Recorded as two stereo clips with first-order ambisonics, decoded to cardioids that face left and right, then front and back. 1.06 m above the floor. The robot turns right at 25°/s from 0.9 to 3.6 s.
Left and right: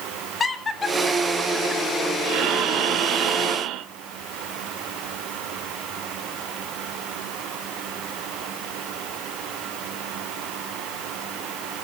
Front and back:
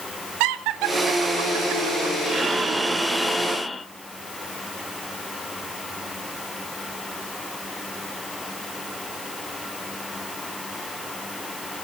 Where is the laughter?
165° left, 2 m; by 2.1 s 165° right, 2 m.